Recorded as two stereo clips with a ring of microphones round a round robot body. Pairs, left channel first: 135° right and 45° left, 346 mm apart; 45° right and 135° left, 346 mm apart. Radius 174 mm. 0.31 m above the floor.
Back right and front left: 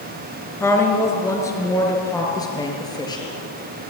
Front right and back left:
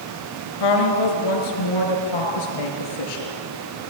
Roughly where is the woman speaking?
Ahead right.